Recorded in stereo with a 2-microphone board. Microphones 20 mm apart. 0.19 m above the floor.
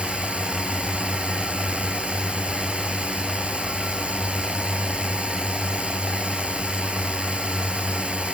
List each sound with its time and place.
0.0 s a drone: 70° right (ahead or behind)